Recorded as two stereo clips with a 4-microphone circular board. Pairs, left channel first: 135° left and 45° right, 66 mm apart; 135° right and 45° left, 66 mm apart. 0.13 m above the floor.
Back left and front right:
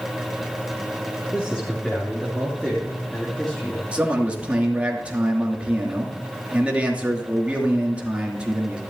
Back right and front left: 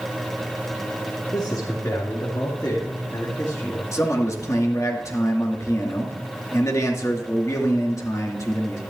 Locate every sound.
1.3 s a man speaking: 150° right, 3.5 m
3.9 s a man speaking: 115° right, 2.5 m